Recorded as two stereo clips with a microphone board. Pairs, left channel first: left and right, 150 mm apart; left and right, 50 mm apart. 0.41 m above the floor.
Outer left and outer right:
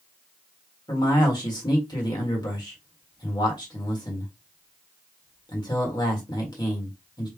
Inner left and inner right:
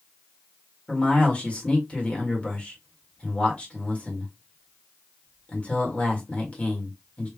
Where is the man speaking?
30° left (ahead or behind), 1.6 m.